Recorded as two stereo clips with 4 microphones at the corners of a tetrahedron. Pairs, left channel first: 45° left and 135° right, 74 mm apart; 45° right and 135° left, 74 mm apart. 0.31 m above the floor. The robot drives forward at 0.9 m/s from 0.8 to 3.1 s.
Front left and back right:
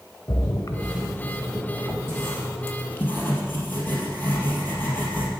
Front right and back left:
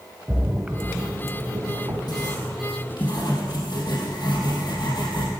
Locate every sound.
0.3 s a splash: 55° left, 0.9 m; by 2.0 s 145° left, 1.1 m
2.1 s writing: 15° right, 4 m; by 5.3 s 20° right, 3 m